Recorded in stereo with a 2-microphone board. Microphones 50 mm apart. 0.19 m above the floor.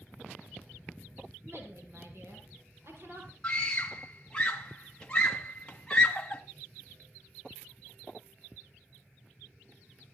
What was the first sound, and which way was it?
A woman speaking, 55° right (ahead or behind).